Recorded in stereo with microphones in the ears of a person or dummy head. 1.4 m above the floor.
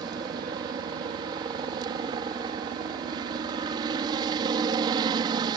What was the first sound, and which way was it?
A helicopter, 30° right (ahead or behind).